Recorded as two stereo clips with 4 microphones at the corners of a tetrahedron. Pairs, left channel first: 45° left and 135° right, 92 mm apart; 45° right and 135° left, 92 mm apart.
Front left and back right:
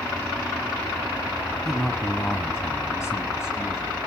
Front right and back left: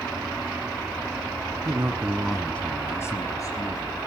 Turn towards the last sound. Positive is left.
turn(degrees=-10)